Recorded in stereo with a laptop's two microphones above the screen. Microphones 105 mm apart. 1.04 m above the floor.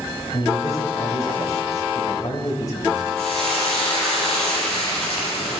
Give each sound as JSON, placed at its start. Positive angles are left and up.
{"t": 0.3, "sound": "a man speaking", "side_deg": 35, "distance_m": 4.0}
{"t": 3.2, "sound": "frying", "side_deg": 5, "distance_m": 6.0}